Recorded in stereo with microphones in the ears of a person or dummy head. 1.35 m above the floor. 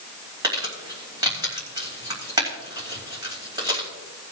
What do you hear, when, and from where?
0.4 s crumpling: 25° right (ahead or behind), 3.5 m